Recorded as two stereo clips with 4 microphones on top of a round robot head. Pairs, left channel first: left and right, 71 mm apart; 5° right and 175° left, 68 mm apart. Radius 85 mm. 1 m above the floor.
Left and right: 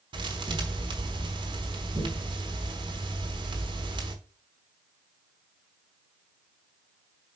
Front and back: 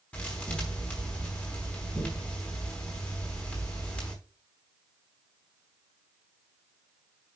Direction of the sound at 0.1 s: 80° right.